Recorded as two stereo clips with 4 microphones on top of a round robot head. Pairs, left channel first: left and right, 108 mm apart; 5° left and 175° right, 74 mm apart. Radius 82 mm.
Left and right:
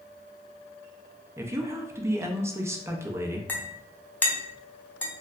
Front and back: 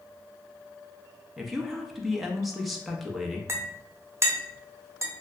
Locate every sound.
1.4 s a woman speaking: 85° right, 0.5 m
3.5 s a clink: 160° left, 0.6 m